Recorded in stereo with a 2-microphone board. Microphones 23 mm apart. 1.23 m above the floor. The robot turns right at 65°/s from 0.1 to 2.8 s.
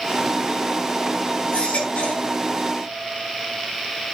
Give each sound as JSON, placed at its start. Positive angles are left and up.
{"t": 1.5, "sound": "a baby crying", "azimuth_deg": 60, "distance_m": 5.0}